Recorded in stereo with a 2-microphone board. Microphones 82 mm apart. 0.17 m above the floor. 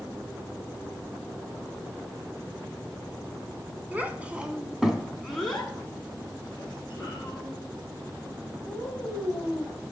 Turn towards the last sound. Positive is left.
turn(degrees=20)  # may be behind; listen again after turning